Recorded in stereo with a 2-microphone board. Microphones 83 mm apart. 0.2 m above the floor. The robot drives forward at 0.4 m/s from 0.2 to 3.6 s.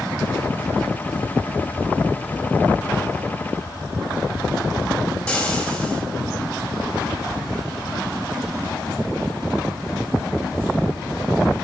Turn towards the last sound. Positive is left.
turn(degrees=15)  # may be behind; listen again after turning